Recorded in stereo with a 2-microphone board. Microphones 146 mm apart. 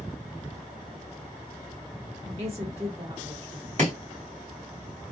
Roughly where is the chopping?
Right.